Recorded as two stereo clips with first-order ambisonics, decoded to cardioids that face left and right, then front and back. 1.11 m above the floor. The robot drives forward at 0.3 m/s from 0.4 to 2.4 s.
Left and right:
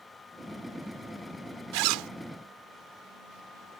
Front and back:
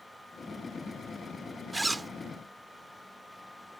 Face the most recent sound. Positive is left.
turn(degrees=-105)